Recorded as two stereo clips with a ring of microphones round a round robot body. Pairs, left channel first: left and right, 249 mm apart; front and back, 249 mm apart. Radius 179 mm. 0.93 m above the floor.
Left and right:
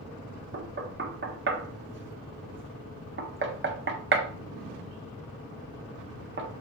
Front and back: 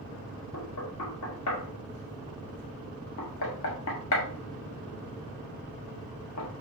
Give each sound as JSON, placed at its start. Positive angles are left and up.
{"t": 0.5, "sound": "knocking", "azimuth_deg": -45, "distance_m": 1.5}